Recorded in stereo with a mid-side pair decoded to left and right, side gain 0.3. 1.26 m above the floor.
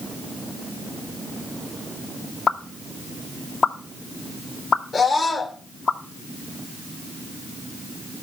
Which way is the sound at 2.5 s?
65° left.